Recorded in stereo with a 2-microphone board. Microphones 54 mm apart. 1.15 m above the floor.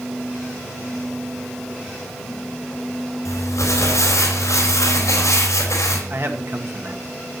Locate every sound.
3.2 s crumpling: 70° left (ahead or behind), 4 m
6.1 s a man speaking: 45° right (ahead or behind), 1.6 m